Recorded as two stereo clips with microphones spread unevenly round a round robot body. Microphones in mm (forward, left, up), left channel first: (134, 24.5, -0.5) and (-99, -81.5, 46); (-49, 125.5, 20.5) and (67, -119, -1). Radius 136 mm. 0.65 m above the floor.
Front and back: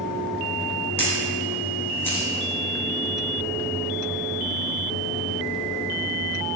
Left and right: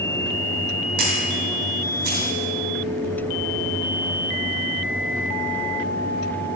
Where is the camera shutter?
60° right, 2.5 m.